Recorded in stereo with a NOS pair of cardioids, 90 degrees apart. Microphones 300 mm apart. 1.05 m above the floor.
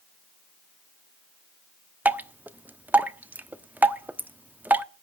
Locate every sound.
2.0 s dripping: 5° right, 1.0 m